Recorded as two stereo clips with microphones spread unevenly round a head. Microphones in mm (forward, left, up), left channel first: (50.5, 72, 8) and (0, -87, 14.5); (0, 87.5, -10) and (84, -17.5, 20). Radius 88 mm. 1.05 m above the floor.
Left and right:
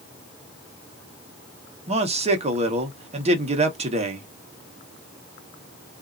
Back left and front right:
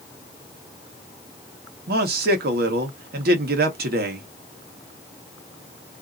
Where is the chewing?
No chewing in this recording.